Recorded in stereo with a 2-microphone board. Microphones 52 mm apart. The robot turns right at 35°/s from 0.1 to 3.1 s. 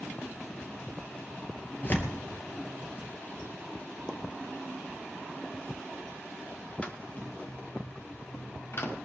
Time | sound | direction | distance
1.8 | tearing paper | 35° left (ahead or behind) | 2.5 m
4.1 | a pop | 15° left (ahead or behind) | 1.5 m
6.8 | footsteps | 25° left (ahead or behind) | 2 m